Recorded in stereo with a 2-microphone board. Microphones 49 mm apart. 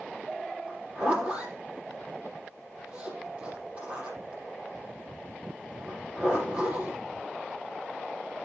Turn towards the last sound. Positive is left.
turn(degrees=-20)  # may be behind; listen again after turning